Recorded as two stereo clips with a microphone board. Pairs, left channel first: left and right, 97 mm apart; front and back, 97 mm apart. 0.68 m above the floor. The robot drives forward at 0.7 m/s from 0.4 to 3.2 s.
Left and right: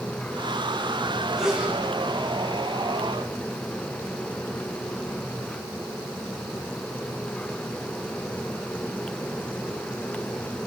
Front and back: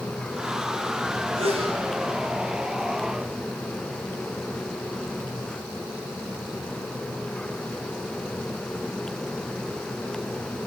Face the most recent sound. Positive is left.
turn(degrees=-175)